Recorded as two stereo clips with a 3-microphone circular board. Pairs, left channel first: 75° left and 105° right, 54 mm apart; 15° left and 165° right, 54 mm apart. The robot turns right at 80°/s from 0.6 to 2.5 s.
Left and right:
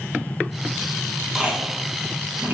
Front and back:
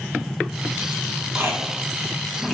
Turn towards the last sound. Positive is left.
turn(degrees=-75)